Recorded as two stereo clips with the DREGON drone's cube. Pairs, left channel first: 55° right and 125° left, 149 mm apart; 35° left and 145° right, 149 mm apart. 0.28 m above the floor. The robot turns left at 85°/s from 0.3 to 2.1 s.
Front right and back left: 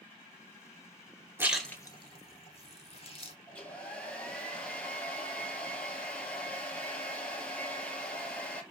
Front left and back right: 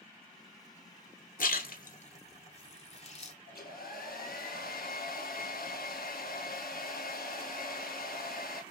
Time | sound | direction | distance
1.4 | a splash | 50° left | 0.9 m
3.5 | a hair dryer | 25° left | 1.0 m